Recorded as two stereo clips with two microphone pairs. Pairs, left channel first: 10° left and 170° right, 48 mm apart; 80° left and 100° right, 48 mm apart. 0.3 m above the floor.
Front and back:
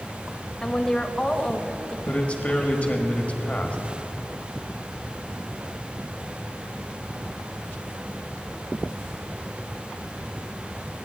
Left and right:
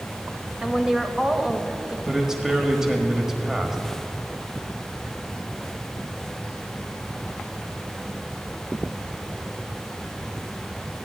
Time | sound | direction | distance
0.6 | a woman speaking | 45° right | 1.0 m
2.1 | a man speaking | 25° right | 1.3 m